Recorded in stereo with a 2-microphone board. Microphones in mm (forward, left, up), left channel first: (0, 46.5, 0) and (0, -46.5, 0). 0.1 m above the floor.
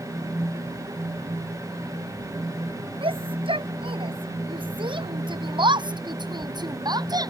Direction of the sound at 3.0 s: 70° right (ahead or behind).